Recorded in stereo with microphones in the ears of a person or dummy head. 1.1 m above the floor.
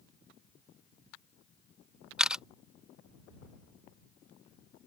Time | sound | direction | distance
2.2 | a camera shutter | 5° right (ahead or behind) | ?